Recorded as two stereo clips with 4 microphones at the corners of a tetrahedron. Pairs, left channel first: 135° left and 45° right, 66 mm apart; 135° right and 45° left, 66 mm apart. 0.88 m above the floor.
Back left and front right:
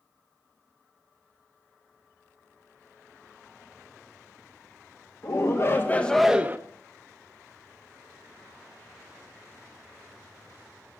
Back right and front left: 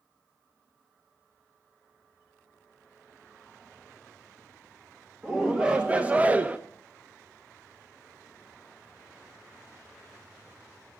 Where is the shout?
120° left, 1.7 m; by 6.6 s 15° right, 1.0 m.